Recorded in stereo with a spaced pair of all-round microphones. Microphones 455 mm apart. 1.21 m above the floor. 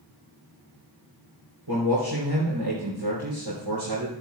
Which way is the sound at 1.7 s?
85° right.